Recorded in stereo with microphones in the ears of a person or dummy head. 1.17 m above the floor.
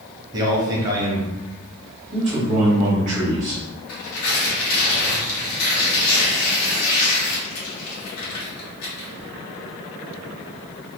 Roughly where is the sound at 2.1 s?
Right.